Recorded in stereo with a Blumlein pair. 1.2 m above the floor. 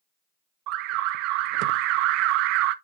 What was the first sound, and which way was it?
An alarm, 40° right.